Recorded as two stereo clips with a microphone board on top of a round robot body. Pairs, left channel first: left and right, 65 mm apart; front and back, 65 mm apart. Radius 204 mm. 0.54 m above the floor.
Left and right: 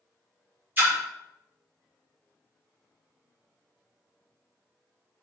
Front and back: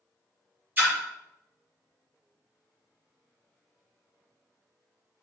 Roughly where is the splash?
Behind right.